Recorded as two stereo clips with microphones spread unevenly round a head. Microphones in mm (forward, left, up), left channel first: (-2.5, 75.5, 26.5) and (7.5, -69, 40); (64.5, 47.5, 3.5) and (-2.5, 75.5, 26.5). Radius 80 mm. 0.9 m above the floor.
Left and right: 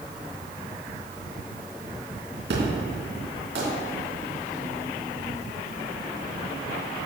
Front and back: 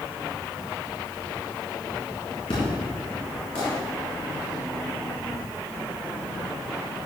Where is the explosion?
70° right, 3.5 m.